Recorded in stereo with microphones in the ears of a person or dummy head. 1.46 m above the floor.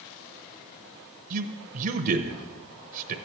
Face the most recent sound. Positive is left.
turn(degrees=-45)  # may be behind; listen again after turning